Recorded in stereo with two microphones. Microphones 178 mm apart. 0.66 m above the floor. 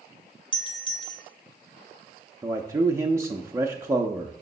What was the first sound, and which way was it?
A doorbell, 30° left (ahead or behind).